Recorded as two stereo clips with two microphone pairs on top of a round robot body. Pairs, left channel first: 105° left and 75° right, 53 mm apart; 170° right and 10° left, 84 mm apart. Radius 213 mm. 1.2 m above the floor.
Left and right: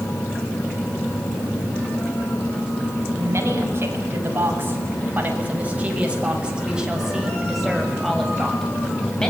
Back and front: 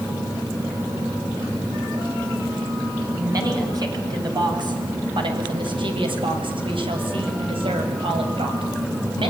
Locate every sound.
3.2 s a woman speaking: 35° right, 8 m; by 9.3 s 25° left, 7.5 m